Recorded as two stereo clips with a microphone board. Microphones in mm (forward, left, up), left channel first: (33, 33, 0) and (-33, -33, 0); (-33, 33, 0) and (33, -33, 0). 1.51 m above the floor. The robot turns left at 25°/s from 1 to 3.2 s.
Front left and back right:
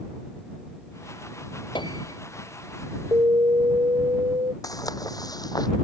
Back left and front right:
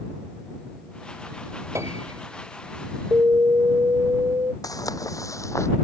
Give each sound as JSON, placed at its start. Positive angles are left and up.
{"t": 1.8, "sound": "a piano", "azimuth_deg": 15}
{"t": 3.1, "sound": "an alarm", "azimuth_deg": -100}
{"t": 4.6, "sound": "footsteps", "azimuth_deg": 90}